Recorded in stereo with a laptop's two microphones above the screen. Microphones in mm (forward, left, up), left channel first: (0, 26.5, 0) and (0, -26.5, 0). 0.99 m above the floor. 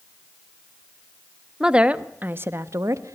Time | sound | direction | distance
1.6 | a woman speaking | 15° right (ahead or behind) | 1.5 m